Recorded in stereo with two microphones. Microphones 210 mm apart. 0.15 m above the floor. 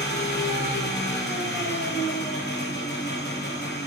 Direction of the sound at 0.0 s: 55° left (ahead or behind).